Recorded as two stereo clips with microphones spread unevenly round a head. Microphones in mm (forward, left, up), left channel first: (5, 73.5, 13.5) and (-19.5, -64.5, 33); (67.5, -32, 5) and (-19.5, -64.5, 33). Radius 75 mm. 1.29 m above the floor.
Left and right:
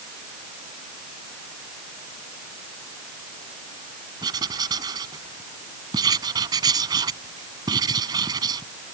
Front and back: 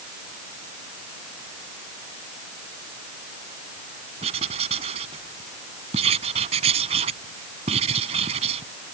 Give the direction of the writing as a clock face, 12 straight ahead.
5 o'clock.